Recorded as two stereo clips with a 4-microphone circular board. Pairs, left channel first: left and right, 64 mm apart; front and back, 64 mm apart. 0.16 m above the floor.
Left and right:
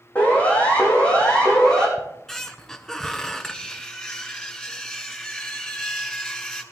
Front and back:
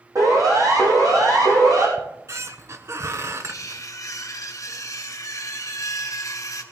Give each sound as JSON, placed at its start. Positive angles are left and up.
{"t": 0.1, "sound": "a siren", "azimuth_deg": 155, "distance_m": 6.0}
{"t": 2.0, "sound": "a squeak", "azimuth_deg": 170, "distance_m": 1.1}
{"t": 3.4, "sound": "cutlery clinking", "azimuth_deg": 15, "distance_m": 1.6}